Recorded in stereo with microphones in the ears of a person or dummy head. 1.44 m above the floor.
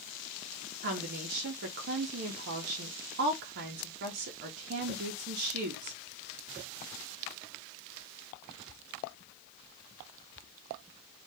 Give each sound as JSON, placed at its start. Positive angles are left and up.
{"t": 0.8, "sound": "a woman speaking", "side_deg": -45, "distance_m": 0.6}